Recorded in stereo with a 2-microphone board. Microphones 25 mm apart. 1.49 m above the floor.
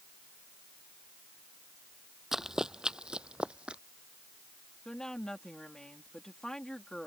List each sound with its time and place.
2.3 s running footsteps: 20° right (ahead or behind); by 3.8 s 50° right (ahead or behind)
4.8 s a woman speaking: 25° left (ahead or behind)